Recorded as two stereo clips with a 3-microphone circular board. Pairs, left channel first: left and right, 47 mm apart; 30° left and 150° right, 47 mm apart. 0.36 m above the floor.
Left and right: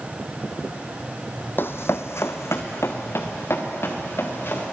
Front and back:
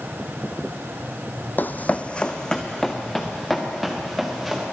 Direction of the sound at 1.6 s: 65° left.